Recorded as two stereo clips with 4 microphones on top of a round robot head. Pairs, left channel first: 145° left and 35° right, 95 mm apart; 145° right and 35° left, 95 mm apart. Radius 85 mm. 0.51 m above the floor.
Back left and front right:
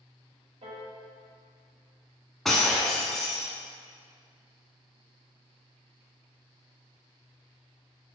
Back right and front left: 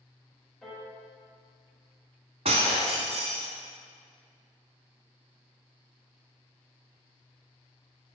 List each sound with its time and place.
0.6 s a piano: 55° right, 1.5 m
2.5 s breaking glass: 55° left, 0.5 m